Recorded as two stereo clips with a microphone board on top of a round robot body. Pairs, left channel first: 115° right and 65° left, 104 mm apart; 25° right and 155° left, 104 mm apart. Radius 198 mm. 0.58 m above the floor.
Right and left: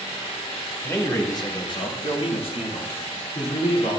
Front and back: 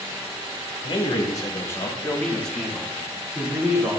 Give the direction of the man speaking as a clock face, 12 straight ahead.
2 o'clock.